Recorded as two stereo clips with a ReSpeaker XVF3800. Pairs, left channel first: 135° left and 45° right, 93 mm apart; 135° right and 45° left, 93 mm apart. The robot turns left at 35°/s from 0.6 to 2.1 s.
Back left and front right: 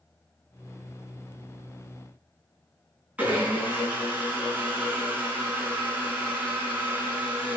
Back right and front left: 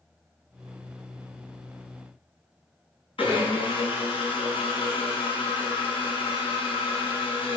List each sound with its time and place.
3.2 s a blender: 120° right, 3 m